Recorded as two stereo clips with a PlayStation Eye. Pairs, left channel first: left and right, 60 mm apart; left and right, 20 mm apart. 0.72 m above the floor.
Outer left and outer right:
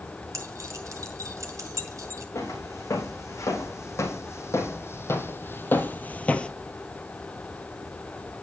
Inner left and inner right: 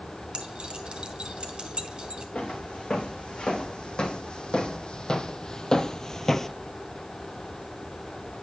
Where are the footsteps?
55° left (ahead or behind), 3 m; by 6.5 s 20° left (ahead or behind), 0.9 m.